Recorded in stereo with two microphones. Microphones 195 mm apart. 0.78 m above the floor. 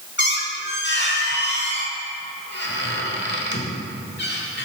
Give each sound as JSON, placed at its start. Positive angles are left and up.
{"t": 0.2, "sound": "a squeak", "side_deg": 60, "distance_m": 1.1}